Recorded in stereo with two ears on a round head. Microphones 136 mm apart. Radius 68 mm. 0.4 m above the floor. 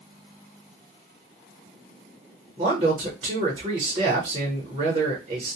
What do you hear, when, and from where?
2.6 s a man speaking: 30° right (ahead or behind), 0.9 m